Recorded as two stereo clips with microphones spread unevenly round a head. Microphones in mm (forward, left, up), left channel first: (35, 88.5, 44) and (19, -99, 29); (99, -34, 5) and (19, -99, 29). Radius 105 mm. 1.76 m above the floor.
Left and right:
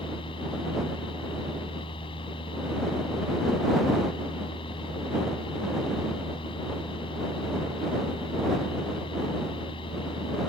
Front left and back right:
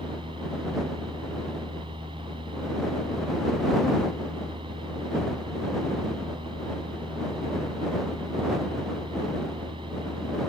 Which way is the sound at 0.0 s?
150° left.